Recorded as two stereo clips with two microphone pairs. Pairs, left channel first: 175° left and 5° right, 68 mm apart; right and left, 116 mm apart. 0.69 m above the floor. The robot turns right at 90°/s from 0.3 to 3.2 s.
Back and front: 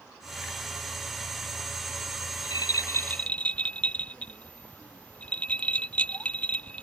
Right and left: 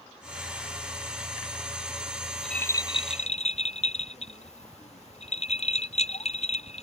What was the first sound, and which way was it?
A rattle, 170° left.